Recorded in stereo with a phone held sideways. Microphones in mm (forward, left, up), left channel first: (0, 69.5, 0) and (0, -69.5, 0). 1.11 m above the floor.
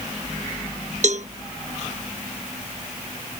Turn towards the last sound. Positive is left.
turn(degrees=-60)  # may be behind; listen again after turning